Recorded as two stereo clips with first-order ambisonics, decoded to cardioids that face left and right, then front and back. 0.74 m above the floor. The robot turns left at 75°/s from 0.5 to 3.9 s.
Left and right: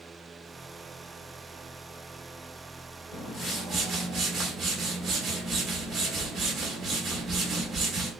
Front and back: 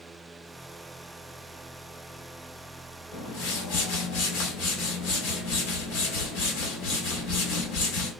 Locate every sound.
3.1 s a whoosh: 45° left, 2 m; by 8.1 s 15° right, 2 m